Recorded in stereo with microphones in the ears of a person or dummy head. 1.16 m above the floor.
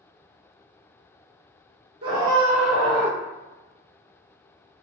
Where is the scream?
30° right (ahead or behind), 1.4 m; by 3.2 s 10° left (ahead or behind), 1.8 m.